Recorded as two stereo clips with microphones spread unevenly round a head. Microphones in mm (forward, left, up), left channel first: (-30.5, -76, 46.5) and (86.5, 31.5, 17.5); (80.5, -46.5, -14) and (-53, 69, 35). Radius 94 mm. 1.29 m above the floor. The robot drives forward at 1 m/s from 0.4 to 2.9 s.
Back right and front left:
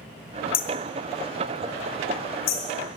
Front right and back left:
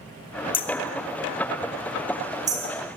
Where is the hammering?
110° right, 1.3 m; by 2.6 s 155° right, 3 m.